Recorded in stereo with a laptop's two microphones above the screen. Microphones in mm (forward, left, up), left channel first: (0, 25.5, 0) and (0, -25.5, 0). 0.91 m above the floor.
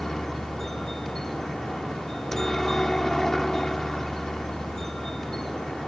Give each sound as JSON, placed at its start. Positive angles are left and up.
{"t": 0.0, "sound": "a helicopter", "side_deg": 10}